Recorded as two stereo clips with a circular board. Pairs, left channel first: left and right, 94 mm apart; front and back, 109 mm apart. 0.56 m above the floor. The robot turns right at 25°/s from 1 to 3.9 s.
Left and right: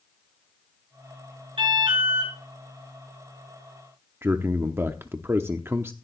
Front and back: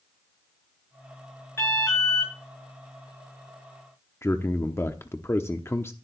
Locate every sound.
1.6 s an alarm: 70° right, 8.5 m; by 2.3 s 50° right, 8.5 m
4.2 s a man speaking: 45° right, 0.8 m